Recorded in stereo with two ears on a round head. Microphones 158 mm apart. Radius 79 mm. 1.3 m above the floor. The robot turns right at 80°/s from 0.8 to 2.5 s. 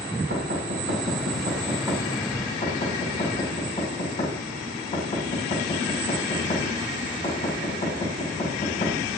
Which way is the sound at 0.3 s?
75° right (ahead or behind).